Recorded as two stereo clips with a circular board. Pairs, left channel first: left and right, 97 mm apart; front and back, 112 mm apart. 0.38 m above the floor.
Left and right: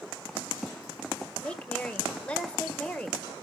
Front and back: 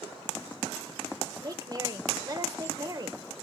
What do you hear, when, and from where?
1.4 s a woman speaking: 160° left, 1.7 m